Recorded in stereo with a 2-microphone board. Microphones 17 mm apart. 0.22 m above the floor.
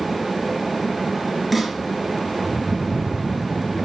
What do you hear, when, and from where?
1.5 s a snare drum: 5° right (ahead or behind), 4 m